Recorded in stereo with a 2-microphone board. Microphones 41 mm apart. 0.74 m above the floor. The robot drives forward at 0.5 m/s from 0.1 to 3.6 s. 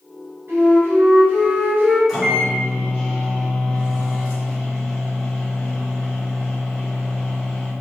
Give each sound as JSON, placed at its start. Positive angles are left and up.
{"t": 0.5, "sound": "a flute", "side_deg": -55, "distance_m": 1.4}
{"t": 2.1, "sound": "a microwave", "side_deg": -10, "distance_m": 1.5}